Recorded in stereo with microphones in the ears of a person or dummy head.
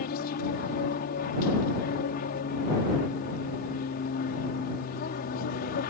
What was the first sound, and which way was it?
An aircraft, 50° left (ahead or behind).